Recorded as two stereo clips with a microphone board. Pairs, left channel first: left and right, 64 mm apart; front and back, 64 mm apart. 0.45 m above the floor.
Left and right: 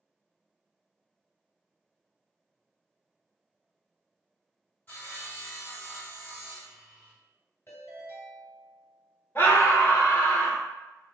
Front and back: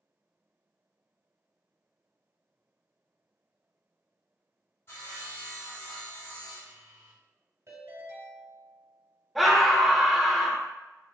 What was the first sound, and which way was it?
Sawing, 35° left.